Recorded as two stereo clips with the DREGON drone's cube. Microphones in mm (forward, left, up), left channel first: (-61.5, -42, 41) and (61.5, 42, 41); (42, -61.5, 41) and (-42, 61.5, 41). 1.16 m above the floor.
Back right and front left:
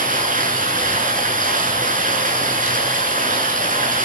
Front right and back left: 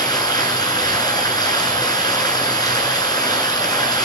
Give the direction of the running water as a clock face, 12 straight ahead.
12 o'clock.